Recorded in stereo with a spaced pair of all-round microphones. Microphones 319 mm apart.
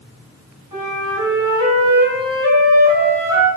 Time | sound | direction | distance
0.7 | a flute | 80° right | 4.5 m